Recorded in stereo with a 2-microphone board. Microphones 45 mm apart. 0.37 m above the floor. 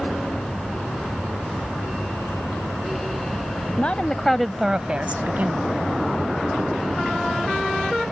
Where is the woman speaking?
35° left (ahead or behind); by 5.7 s 45° right (ahead or behind).